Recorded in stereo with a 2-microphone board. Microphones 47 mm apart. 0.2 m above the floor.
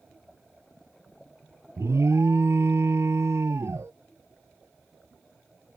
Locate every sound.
1.8 s an alarm: 70° right (ahead or behind)